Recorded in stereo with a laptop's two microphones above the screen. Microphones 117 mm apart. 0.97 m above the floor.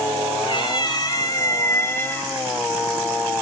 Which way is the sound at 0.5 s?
45° left (ahead or behind).